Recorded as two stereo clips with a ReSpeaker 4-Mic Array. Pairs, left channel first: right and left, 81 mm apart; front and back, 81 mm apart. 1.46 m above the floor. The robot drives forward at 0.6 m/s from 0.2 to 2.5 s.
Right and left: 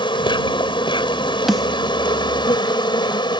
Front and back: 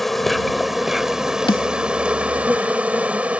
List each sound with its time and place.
0.0 s an insect: 90° right; by 3.4 s 105° right
1.5 s a snare drum: straight ahead